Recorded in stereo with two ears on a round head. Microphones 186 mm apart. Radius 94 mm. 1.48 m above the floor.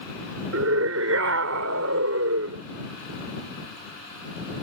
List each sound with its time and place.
0.5 s a scream: 80° right